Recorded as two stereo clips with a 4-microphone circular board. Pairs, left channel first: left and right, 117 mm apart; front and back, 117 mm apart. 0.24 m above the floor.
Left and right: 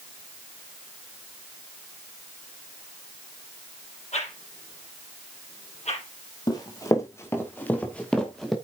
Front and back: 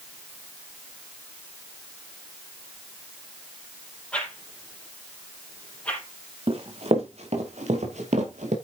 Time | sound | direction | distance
4.1 | a whoosh | 80° left | 4.5 m
6.5 | running footsteps | 145° left | 4 m